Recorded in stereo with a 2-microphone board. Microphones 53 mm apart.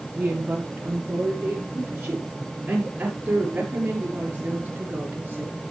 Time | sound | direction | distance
0.2 | a woman speaking | 25° right (ahead or behind) | 7 m